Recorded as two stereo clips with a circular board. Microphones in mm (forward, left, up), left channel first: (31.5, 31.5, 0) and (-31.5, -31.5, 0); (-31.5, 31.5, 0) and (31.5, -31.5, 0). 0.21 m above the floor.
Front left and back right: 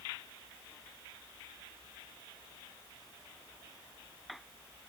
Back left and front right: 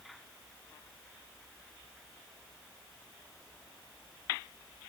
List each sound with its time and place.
Only background noise.